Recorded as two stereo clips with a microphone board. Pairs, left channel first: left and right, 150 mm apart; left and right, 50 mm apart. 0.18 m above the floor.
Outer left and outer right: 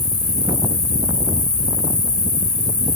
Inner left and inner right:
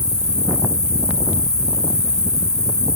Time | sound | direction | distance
0.0 | an insect | 70° left (ahead or behind) | 2 m